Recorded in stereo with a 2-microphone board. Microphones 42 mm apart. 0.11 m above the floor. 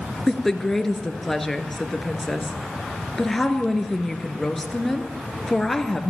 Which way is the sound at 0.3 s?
10° left (ahead or behind).